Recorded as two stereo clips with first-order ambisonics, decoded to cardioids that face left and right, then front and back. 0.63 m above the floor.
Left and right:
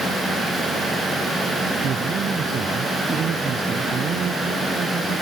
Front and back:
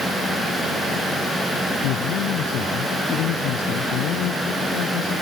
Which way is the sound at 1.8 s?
30° right.